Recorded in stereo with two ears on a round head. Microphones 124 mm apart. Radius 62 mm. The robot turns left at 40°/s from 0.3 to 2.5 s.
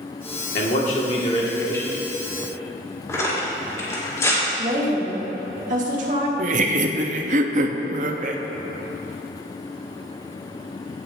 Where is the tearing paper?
20° left (ahead or behind), 2.5 m.